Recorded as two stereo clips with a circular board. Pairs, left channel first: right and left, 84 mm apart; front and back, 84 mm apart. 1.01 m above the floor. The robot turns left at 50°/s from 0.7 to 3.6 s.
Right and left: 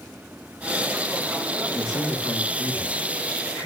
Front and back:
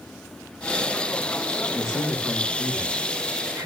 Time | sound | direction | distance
1.7 | a man speaking | 50° right | 4 m